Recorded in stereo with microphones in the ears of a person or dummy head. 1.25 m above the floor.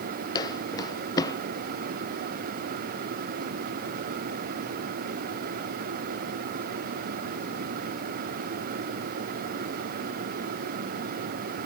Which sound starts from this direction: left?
Footsteps, at 0.3 s.